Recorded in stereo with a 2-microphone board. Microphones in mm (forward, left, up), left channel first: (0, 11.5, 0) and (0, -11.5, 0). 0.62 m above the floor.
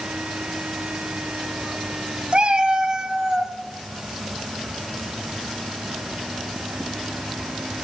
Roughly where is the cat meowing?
Right.